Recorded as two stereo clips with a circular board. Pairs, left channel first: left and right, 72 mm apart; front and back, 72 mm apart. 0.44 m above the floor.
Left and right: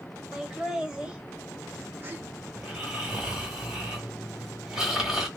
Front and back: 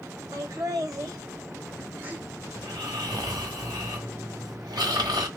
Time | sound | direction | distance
0.3 | laughter | 175° right | 2.0 m
2.5 | snoring | 170° right | 1.9 m